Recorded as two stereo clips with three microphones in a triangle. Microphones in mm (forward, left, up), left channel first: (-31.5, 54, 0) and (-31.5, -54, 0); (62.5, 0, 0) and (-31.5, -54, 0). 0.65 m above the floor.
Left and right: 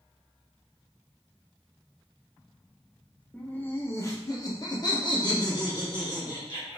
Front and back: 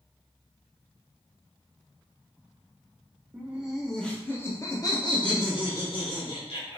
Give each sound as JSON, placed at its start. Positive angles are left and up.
{"t": 3.3, "sound": "laughter", "azimuth_deg": 160, "distance_m": 0.8}